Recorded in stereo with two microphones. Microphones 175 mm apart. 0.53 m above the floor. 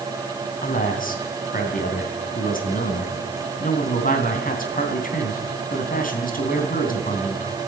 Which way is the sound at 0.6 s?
50° left (ahead or behind).